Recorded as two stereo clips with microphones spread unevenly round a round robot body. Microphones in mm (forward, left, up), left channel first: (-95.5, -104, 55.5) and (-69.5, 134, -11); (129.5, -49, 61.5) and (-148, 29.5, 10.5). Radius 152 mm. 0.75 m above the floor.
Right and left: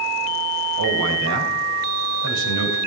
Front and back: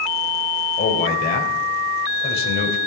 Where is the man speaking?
45° left, 3.5 m.